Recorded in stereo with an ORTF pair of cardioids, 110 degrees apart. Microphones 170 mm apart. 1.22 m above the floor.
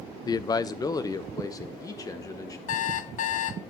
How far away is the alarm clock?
About 0.8 m.